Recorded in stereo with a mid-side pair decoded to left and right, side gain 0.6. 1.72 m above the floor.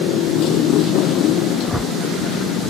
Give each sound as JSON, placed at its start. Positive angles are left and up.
{"t": 0.0, "sound": "a motorcycle", "azimuth_deg": 65}
{"t": 1.6, "sound": "a whoosh", "azimuth_deg": 0}